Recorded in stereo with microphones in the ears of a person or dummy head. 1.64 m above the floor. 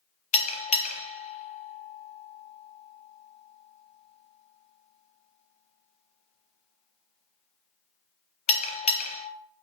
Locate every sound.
0.3 s a bell: 40° left (ahead or behind), 0.6 m